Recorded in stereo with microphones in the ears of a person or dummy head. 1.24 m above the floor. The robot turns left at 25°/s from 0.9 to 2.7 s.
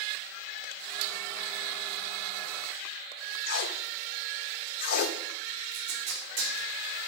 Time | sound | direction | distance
3.5 | tape being pulled | 55° left (ahead or behind) | 0.8 m
5.7 | tape being pulled | 40° right (ahead or behind) | 4 m